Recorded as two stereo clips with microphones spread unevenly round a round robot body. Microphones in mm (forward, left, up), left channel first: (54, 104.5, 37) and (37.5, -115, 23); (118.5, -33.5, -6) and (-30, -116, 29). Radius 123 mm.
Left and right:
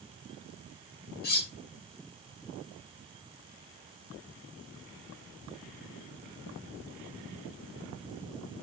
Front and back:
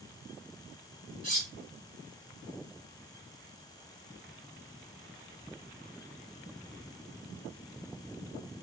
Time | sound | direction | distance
1.2 | cutlery clinking | 140° left | 0.6 m